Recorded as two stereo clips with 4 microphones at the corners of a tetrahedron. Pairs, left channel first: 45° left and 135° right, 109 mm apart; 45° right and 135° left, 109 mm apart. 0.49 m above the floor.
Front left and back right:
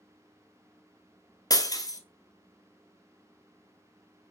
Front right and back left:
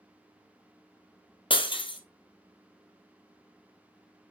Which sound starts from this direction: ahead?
Breaking glass, at 1.5 s.